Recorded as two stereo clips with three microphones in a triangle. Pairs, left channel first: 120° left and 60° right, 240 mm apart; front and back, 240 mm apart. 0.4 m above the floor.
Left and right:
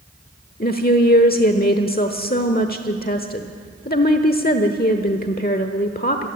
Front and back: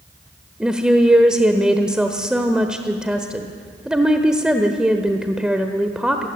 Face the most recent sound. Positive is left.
turn(degrees=95)